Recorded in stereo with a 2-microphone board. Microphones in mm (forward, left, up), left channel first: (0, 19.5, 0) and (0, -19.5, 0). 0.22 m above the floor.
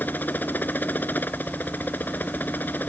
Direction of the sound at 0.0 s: 50° left (ahead or behind).